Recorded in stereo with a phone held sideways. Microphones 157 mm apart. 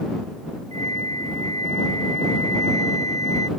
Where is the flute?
45° right (ahead or behind).